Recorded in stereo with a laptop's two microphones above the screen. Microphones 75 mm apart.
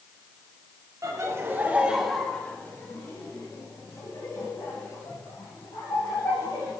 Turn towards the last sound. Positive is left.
turn(degrees=75)  # may be behind; listen again after turning